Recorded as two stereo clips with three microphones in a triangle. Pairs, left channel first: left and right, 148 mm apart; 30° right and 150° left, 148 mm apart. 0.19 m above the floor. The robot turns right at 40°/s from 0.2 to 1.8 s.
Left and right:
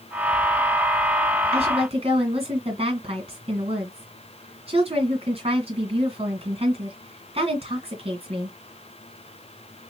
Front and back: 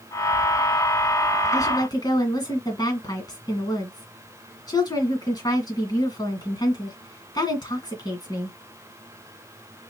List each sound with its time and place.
1.5 s a woman speaking: 90° right, 2 m; by 8.6 s 80° right, 2 m